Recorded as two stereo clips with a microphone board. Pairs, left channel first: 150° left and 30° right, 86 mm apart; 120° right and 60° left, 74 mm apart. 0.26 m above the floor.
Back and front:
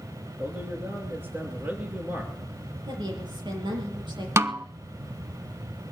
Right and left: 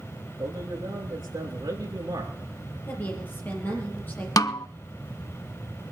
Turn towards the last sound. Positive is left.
turn(degrees=-85)